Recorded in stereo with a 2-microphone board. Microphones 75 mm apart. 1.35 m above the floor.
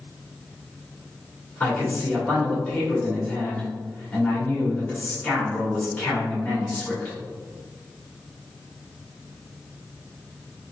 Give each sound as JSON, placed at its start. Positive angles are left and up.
{"t": 1.6, "sound": "a man speaking", "side_deg": 25, "distance_m": 1.9}